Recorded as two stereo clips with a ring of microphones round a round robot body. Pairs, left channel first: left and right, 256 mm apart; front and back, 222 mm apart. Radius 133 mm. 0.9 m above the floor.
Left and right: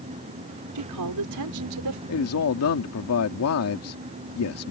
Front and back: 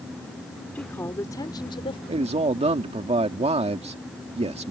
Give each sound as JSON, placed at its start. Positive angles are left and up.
{"t": 0.8, "sound": "a woman speaking", "azimuth_deg": -85}
{"t": 2.1, "sound": "a man speaking", "azimuth_deg": 120}